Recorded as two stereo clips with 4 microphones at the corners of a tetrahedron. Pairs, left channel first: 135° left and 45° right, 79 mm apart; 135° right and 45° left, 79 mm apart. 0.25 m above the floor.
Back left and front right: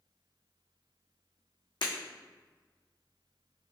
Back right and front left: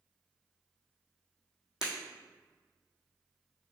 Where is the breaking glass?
125° left, 1.4 m.